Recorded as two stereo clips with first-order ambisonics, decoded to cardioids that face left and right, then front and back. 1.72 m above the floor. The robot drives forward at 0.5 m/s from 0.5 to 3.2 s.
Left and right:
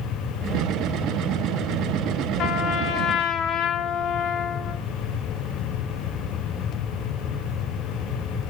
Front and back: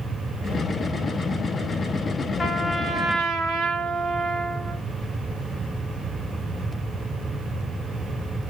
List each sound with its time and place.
2.4 s a trumpet: 65° left, 0.6 m; by 4.8 s 125° left, 0.6 m